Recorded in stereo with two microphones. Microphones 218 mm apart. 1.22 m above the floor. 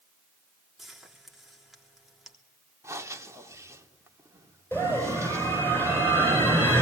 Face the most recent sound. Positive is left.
turn(degrees=10)  # may be behind; listen again after turning